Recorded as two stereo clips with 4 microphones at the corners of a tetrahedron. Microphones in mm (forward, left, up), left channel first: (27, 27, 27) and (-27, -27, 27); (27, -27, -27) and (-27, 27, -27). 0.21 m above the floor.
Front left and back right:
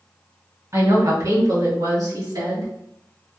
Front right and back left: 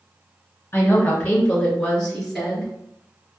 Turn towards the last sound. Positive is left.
turn(degrees=-135)